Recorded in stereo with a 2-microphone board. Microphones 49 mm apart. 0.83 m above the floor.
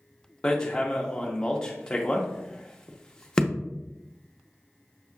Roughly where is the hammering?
Centre.